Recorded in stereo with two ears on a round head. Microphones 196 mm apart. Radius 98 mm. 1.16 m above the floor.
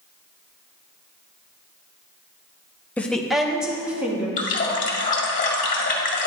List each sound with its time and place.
3.0 s a woman speaking: 5° left (ahead or behind), 0.8 m; by 4.3 s 5° right (ahead or behind), 2.5 m
4.4 s a running tap: 35° left (ahead or behind), 2.0 m